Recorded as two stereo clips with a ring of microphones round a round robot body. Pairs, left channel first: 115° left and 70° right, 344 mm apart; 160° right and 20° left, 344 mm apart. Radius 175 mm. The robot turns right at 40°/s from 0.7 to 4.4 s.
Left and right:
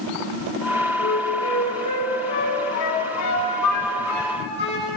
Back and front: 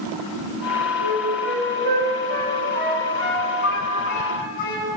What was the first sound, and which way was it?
A flute, 35° left.